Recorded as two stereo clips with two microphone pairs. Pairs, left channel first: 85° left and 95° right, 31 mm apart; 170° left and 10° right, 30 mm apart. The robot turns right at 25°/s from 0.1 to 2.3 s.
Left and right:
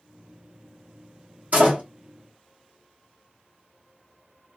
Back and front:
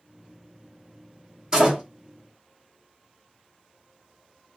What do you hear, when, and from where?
1.5 s a door slam: 75° right, 1.3 m; by 1.8 s 70° right, 1.3 m